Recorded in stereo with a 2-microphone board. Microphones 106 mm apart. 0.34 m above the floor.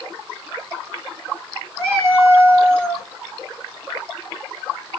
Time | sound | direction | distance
1.8 | a cat meowing | 25° right (ahead or behind) | 1.5 m